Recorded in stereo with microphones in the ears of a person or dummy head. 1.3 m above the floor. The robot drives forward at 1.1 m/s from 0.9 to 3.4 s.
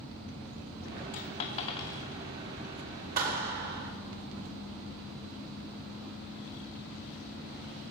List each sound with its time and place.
1.1 s a dropped coin: 35° left (ahead or behind), 0.9 m; by 2.0 s 20° left (ahead or behind), 1.4 m
3.2 s a clap: 50° right (ahead or behind), 2.5 m; by 3.9 s 55° right (ahead or behind), 2 m